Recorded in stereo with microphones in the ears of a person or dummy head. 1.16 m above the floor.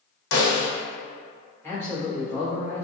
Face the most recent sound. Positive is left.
turn(degrees=10)  # may be behind; listen again after turning